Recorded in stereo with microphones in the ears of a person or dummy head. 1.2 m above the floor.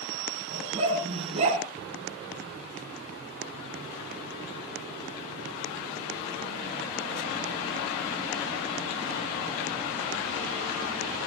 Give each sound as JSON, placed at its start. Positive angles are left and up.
{"t": 0.5, "sound": "a dog barking", "side_deg": -30, "distance_m": 5.0}